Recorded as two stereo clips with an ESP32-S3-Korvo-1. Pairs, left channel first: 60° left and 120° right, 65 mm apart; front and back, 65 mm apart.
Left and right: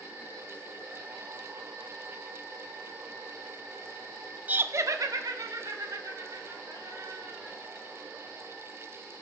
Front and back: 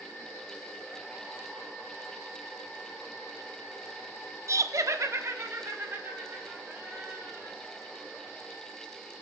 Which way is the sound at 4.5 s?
Straight behind.